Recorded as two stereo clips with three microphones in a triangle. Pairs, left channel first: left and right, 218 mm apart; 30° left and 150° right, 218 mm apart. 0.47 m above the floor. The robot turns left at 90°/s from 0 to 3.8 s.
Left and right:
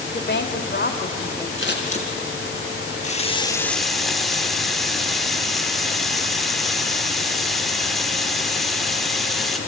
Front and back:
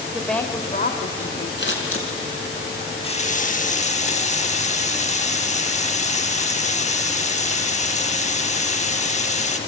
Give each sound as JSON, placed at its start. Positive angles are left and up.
{"t": 0.1, "sound": "a woman speaking", "azimuth_deg": 130, "distance_m": 1.4}
{"t": 1.6, "sound": "scissors", "azimuth_deg": 65, "distance_m": 2.5}
{"t": 3.0, "sound": "a running tap", "azimuth_deg": 75, "distance_m": 0.8}